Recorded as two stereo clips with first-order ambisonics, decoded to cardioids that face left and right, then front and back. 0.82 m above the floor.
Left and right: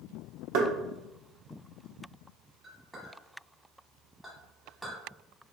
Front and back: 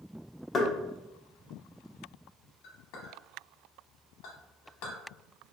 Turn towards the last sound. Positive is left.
turn(degrees=-5)